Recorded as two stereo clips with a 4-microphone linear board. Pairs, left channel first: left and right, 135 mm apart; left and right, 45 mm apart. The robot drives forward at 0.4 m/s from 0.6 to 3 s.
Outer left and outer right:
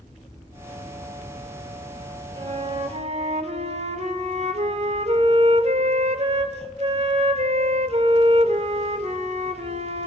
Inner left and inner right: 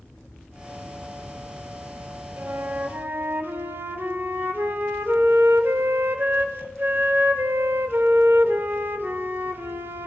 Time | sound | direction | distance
2.4 | a flute | 45° right (ahead or behind) | 1.1 m